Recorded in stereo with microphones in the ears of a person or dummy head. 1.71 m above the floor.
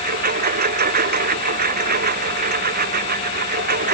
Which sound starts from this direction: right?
A lawn mower, at 0.0 s.